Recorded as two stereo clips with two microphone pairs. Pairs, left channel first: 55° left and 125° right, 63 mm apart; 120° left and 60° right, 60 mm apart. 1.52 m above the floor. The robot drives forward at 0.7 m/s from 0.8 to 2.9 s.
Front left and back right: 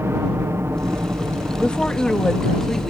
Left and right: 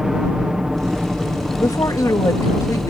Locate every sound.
0.0 s a helicopter: 135° right; by 2.9 s 125° right
1.6 s a woman speaking: 125° left; by 2.9 s 140° left